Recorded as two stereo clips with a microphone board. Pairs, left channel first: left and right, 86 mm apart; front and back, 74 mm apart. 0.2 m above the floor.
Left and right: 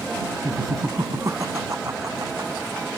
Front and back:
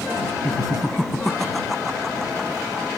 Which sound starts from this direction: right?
Laughter, at 0.4 s.